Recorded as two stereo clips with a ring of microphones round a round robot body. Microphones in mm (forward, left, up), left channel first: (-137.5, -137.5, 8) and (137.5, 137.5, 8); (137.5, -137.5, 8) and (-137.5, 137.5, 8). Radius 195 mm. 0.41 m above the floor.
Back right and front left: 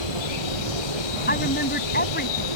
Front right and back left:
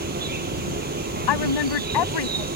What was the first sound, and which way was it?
An insect, 155° right.